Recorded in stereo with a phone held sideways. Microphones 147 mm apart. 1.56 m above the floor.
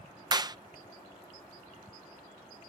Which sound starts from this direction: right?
A clap, at 0.3 s.